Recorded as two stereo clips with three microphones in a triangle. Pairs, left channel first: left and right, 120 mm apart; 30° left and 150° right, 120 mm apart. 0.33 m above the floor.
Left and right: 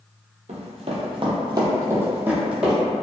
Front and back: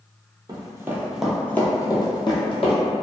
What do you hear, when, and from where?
0.5 s running footsteps: 95° right, 0.7 m; by 2.8 s 5° right, 1.0 m